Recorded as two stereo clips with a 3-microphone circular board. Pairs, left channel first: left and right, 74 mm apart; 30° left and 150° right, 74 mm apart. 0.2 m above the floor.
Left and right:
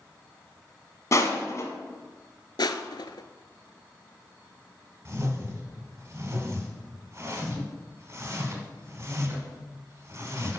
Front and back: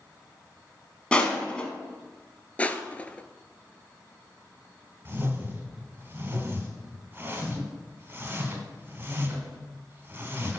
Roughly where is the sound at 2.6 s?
Left.